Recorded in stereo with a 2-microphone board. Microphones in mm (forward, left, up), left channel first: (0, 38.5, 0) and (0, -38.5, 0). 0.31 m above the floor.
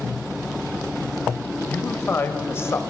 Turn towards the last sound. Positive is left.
turn(degrees=35)  # may be behind; listen again after turning